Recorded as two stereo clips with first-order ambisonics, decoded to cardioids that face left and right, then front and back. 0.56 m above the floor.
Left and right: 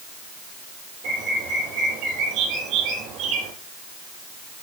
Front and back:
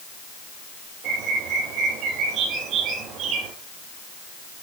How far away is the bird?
About 6 m.